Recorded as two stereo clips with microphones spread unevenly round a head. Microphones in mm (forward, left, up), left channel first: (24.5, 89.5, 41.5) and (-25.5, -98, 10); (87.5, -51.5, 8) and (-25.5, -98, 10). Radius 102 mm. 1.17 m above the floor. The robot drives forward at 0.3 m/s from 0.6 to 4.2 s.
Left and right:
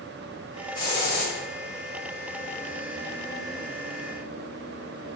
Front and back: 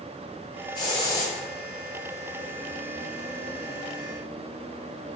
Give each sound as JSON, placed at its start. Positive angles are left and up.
{"t": 0.8, "sound": "a hiss", "azimuth_deg": 40, "distance_m": 1.1}